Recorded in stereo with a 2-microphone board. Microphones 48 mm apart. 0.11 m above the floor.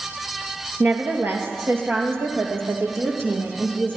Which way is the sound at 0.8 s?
50° right (ahead or behind).